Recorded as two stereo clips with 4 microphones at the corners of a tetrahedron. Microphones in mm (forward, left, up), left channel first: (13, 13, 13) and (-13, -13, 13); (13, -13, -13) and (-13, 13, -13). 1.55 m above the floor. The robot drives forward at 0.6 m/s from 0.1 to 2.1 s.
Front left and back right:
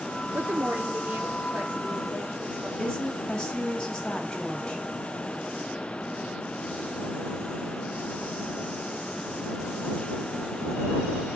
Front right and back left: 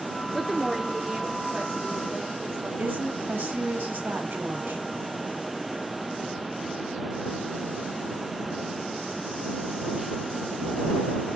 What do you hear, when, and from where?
0.3 s a woman speaking: 135° right, 0.6 m; by 2.7 s 165° right, 1.5 m
2.8 s a woman speaking: 120° left, 1.6 m